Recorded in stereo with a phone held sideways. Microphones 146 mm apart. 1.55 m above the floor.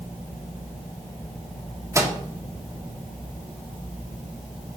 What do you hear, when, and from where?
1.9 s a microwave: 20° right (ahead or behind), 1.1 m